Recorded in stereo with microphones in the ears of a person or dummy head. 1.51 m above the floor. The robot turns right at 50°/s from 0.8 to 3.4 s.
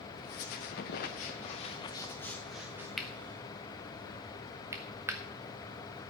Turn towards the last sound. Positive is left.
turn(degrees=-10)  # may be behind; listen again after turning